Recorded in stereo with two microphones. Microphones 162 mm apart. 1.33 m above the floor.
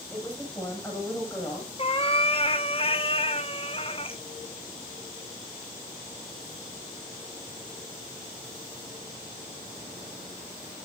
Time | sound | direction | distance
0.1 | a woman speaking | 10° left (ahead or behind) | 7.5 m
1.8 | a cat meowing | 35° left (ahead or behind) | 1.1 m